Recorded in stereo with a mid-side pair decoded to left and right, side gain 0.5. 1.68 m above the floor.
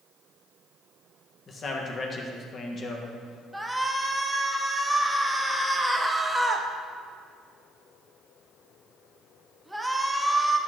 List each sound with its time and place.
1.5 s a man speaking: 45° left, 1.7 m
3.5 s a shout: 10° right, 1.3 m